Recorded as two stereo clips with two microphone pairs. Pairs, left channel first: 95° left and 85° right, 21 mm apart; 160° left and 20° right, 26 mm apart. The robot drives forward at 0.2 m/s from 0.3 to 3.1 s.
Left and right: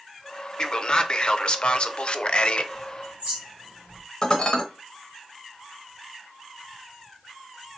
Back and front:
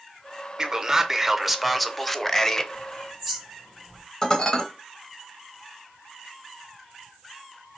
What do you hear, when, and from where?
0.6 s a man speaking: 45° left, 0.6 m; by 2.6 s 100° left, 0.5 m
2.7 s a bird: 115° right, 1.6 m
4.2 s dishes clattering: 135° left, 0.8 m